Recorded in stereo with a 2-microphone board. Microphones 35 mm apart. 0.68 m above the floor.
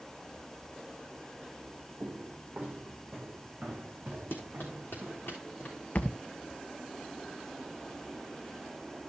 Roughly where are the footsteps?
Right.